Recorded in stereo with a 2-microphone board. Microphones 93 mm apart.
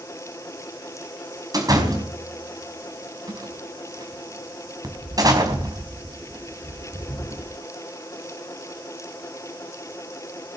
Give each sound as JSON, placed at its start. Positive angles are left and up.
{"t": 1.5, "sound": "a door slam", "side_deg": -40, "distance_m": 4.5}